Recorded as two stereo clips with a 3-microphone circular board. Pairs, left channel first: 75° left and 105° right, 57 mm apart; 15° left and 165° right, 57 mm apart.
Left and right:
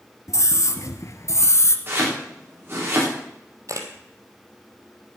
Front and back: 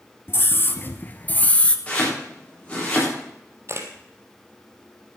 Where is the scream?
55° left, 2 m; by 1.8 s 80° left, 1.5 m.